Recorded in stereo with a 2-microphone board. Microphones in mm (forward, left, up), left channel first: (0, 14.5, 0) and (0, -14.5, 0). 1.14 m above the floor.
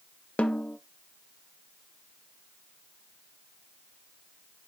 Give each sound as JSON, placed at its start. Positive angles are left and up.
{"t": 0.4, "sound": "a snare drum", "side_deg": 45, "distance_m": 0.6}